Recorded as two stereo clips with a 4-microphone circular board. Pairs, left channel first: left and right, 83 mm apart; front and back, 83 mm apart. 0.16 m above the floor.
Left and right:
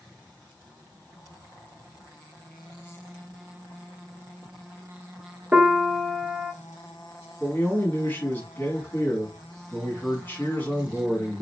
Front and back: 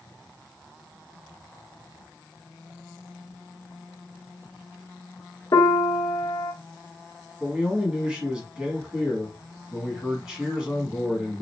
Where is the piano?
20° right, 0.7 m.